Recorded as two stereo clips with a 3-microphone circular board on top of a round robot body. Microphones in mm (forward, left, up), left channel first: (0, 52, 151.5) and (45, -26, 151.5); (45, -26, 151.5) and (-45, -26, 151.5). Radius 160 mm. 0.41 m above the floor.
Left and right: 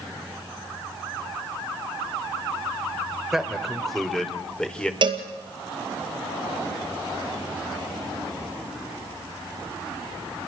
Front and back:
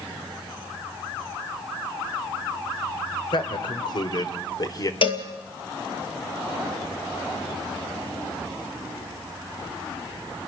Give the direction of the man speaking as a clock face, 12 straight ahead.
11 o'clock.